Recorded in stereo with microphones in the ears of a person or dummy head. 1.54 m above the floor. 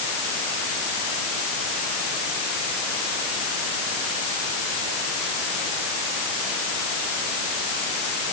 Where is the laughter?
No laughter in this recording.